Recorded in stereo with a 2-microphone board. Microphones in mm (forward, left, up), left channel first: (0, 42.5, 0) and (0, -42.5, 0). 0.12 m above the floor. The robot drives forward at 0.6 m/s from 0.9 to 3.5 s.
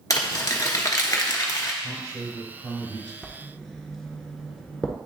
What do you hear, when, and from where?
0.1 s crumpling: 40° left (ahead or behind), 1.0 m
1.8 s a man speaking: 50° right (ahead or behind), 3 m; by 3.1 s 55° right (ahead or behind), 3 m
3.2 s writing: centre (ahead or behind), 0.9 m